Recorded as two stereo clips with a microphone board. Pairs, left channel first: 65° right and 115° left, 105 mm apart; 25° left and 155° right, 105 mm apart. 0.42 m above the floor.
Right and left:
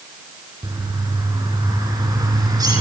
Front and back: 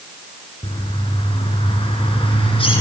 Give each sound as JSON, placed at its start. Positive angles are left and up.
{"t": 0.6, "sound": "a bird", "azimuth_deg": 55, "distance_m": 4.5}